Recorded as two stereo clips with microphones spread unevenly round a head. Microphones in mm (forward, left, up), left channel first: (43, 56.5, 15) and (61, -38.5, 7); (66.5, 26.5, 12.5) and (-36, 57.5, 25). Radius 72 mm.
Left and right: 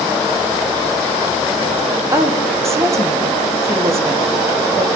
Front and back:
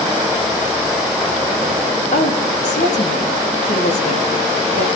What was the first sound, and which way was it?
A woman speaking, 20° right.